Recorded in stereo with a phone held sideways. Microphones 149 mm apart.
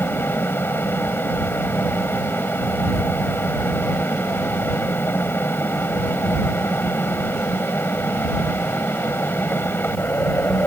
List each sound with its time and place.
0.0 s a fan: 15° left (ahead or behind)